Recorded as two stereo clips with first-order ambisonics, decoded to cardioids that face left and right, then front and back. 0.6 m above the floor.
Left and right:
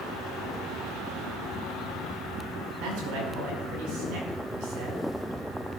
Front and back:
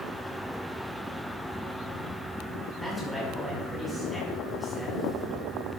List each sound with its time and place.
2.8 s a man speaking: 95° right, 5 m